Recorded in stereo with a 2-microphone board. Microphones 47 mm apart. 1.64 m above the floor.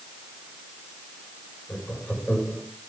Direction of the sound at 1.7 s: 25° left (ahead or behind).